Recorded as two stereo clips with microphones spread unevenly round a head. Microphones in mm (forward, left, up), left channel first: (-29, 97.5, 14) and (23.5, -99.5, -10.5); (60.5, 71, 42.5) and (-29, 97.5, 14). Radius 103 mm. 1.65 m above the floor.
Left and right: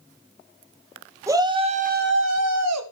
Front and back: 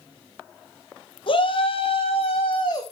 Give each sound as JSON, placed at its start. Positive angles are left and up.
{"t": 1.3, "sound": "a shout", "azimuth_deg": 5, "distance_m": 1.4}